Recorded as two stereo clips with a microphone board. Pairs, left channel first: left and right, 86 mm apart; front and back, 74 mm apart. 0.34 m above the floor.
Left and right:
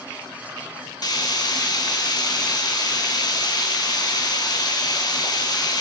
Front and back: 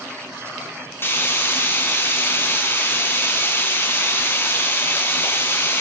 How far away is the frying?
About 2.5 m.